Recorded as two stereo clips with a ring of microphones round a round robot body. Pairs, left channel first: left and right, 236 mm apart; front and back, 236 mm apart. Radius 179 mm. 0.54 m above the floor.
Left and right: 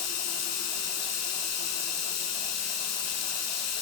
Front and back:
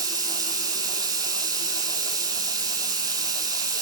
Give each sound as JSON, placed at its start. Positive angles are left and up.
{"t": 0.0, "sound": "running water", "azimuth_deg": 105, "distance_m": 8.0}